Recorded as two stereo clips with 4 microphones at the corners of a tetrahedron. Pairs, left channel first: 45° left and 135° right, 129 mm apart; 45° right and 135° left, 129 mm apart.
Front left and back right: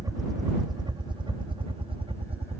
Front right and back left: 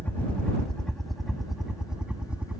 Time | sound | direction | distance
0.0 | a helicopter | 110° right | ?